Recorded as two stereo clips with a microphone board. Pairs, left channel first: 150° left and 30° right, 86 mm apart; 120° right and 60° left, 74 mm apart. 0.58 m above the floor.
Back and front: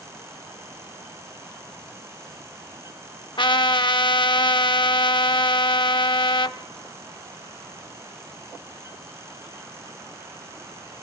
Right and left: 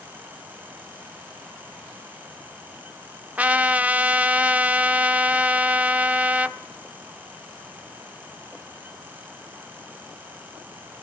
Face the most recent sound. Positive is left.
turn(degrees=130)